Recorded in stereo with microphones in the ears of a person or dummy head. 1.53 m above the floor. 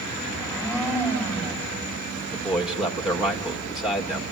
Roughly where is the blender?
Centre.